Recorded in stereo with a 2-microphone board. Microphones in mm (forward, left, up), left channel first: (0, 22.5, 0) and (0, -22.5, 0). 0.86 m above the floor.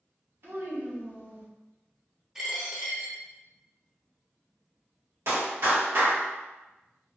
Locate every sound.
0.4 s a child speaking: 60° right (ahead or behind), 1.2 m
2.4 s a dropped coin: 10° right (ahead or behind), 1.0 m
5.3 s a clap: 65° right (ahead or behind), 1.5 m